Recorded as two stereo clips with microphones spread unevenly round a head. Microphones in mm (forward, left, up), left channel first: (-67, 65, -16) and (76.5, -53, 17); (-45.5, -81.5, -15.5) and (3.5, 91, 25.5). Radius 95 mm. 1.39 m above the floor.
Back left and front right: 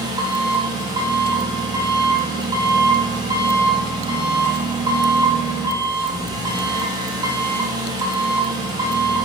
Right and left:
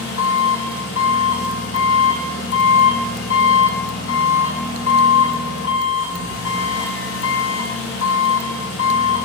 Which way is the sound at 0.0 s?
110° right.